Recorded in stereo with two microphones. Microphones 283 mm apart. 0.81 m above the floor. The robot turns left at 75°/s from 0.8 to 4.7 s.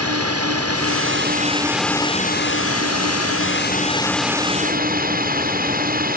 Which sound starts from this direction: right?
A drone, at 0.0 s.